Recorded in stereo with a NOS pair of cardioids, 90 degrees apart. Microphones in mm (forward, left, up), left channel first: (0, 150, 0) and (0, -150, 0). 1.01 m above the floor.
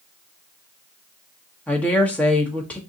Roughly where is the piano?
I don't hear a piano.